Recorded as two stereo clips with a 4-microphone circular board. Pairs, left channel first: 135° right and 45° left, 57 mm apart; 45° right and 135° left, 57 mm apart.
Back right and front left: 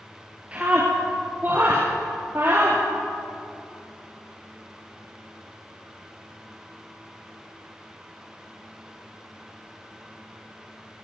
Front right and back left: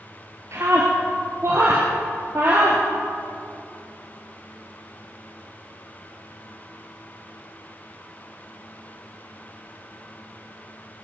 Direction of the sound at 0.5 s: 110° left.